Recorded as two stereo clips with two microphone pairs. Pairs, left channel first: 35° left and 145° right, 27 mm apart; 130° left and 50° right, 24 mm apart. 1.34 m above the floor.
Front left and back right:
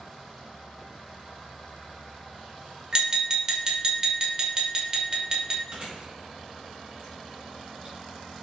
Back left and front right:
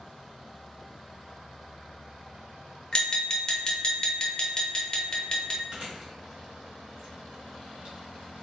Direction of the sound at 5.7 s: 100° right.